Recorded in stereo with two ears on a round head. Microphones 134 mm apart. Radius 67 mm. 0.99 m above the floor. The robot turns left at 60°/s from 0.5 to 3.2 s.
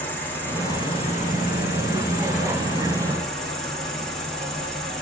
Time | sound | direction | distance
0.0 | an insect | 165° left | 1.5 m